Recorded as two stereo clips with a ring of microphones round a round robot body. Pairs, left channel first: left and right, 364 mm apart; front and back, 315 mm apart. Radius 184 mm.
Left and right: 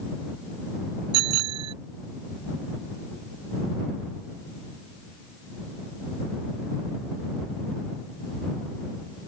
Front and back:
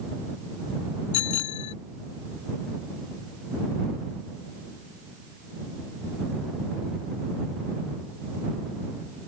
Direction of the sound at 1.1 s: 45° right.